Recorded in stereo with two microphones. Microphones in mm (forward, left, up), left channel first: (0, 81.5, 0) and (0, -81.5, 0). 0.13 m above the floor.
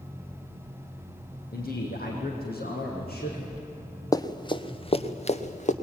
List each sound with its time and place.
1.5 s a man speaking: 70° left (ahead or behind), 6.5 m; by 3.6 s 75° left (ahead or behind), 8 m
4.1 s running footsteps: 20° left (ahead or behind), 1.5 m; by 5.7 s 50° left (ahead or behind), 2 m